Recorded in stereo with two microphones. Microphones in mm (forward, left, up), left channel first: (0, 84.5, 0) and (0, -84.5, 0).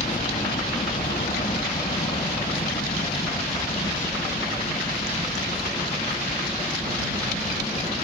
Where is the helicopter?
50° left (ahead or behind); by 8.0 s 35° left (ahead or behind).